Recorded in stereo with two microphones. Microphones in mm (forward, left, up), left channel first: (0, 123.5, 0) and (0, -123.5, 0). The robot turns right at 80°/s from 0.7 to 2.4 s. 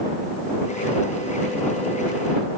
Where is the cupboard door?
I don't hear a cupboard door.